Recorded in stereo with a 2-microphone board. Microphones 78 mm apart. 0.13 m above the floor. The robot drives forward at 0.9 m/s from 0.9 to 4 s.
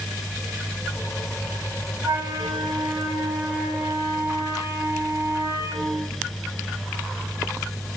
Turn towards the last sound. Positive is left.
turn(degrees=-40)  # may be behind; listen again after turning